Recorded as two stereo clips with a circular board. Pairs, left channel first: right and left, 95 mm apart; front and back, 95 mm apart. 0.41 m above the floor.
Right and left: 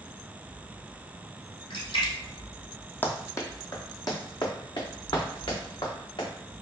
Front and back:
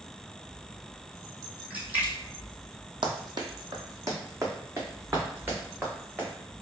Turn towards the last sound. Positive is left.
turn(degrees=-110)